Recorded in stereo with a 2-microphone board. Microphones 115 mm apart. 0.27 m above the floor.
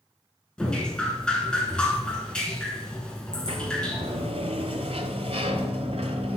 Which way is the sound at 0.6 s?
10° left (ahead or behind).